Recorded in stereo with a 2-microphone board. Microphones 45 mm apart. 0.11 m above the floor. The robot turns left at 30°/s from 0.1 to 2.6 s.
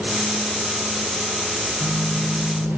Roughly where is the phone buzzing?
Left.